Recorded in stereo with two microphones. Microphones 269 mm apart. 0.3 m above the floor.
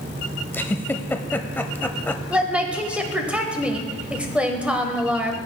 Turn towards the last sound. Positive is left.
turn(degrees=-5)  # may be behind; listen again after turning